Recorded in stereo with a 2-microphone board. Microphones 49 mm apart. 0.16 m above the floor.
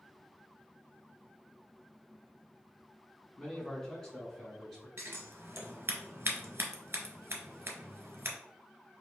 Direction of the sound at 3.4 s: 15° left (ahead or behind).